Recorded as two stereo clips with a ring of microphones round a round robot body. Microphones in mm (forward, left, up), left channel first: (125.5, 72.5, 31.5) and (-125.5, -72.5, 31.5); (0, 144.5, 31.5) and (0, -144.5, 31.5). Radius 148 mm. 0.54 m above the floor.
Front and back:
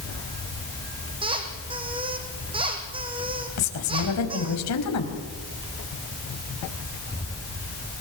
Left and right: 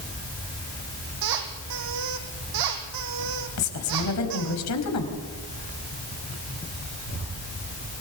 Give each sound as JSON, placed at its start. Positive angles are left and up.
{"t": 1.2, "sound": "a squeak", "azimuth_deg": -75, "distance_m": 4.0}
{"t": 3.6, "sound": "a woman speaking", "azimuth_deg": 60, "distance_m": 4.0}